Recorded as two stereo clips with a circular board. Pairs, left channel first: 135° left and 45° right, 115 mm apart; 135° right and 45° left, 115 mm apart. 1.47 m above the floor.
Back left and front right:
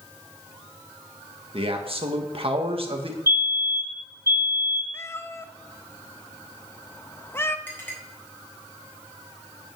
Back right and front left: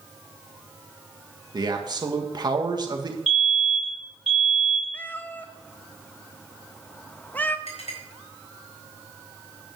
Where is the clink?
155° right, 4 m.